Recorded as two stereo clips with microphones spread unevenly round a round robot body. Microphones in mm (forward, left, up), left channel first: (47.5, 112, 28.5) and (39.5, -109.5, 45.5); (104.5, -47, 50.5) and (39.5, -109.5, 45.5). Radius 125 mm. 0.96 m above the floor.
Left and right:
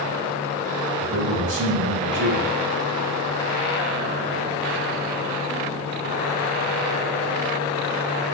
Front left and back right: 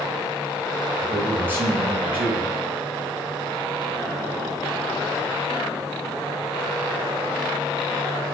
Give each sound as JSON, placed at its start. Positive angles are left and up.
{"t": 1.0, "sound": "a man speaking", "azimuth_deg": -70, "distance_m": 5.5}